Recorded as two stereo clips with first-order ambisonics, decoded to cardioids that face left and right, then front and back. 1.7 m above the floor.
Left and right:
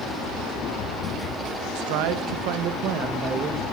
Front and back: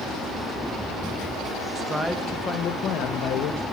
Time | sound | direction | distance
1.8 | a man speaking | 105° right | 2 m